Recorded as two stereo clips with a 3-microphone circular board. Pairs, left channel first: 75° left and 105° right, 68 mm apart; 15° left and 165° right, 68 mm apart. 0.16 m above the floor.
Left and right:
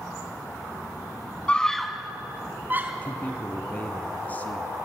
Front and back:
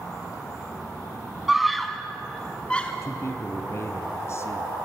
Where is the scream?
120° left, 1.1 m; by 2.9 s 55° right, 1.8 m.